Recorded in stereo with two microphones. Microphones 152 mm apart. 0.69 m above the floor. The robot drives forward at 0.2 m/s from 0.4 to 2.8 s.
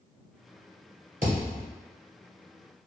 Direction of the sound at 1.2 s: 60° right (ahead or behind).